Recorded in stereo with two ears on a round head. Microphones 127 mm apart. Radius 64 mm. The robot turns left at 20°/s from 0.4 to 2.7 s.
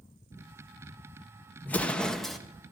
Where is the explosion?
10° left (ahead or behind), 0.7 m; by 2.4 s centre (ahead or behind), 0.7 m.